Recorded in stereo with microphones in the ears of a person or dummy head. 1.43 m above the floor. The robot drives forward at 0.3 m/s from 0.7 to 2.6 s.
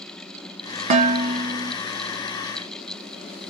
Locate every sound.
0.9 s dishes clattering: 40° right (ahead or behind), 0.7 m; by 1.8 s 30° right (ahead or behind), 0.9 m